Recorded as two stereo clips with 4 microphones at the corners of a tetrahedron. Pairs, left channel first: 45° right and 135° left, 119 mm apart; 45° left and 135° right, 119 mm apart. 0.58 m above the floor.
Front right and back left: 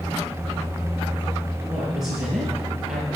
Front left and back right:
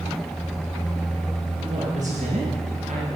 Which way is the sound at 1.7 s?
140° right.